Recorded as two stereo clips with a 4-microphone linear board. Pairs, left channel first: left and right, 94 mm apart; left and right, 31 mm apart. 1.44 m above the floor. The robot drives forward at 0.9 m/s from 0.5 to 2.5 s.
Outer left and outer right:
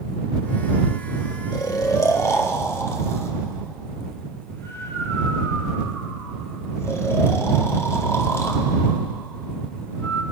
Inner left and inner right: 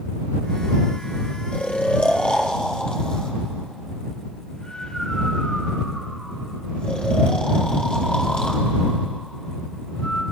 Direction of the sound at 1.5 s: 45° left (ahead or behind).